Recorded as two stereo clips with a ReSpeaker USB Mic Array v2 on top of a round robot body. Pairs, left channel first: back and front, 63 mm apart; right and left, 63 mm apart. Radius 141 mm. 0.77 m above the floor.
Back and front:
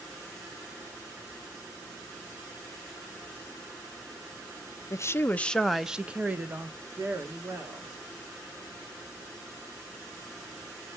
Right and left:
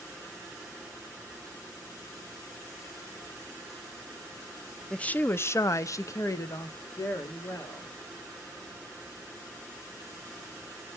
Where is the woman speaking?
165° right, 0.8 m; by 7.9 s 45° right, 2 m.